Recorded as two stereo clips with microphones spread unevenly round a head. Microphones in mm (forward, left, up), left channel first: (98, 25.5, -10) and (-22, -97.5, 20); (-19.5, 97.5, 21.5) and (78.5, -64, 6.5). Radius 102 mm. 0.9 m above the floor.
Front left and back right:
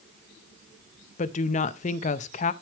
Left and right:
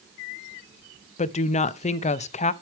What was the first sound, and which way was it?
A woman speaking, 70° left.